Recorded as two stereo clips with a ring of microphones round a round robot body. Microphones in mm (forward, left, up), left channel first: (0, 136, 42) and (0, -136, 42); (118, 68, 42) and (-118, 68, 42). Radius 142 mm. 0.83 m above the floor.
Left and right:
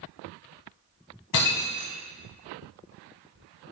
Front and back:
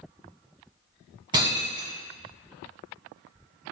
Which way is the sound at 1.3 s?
110° left.